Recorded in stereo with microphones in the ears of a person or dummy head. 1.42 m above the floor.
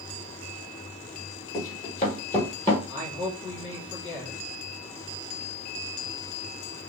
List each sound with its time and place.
1.5 s running footsteps: 45° left (ahead or behind), 1.9 m; by 2.8 s 5° right (ahead or behind), 1.3 m
2.9 s a man speaking: 70° left (ahead or behind), 1.3 m